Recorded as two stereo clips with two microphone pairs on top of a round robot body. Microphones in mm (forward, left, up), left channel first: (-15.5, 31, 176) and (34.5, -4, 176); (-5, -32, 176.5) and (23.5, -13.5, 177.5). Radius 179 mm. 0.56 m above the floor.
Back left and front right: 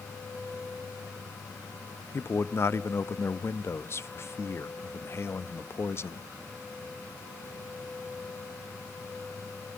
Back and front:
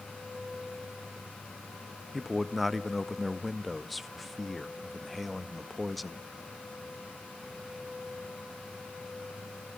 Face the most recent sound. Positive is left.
turn(degrees=125)